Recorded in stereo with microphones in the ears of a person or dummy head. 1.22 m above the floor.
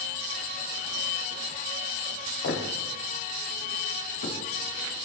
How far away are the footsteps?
About 4 m.